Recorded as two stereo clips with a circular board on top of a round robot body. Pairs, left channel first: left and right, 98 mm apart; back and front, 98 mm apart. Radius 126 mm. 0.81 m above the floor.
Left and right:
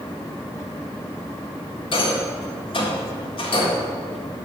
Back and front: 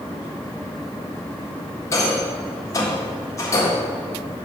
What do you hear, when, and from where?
1.9 s a rattle: 120° left, 1.6 m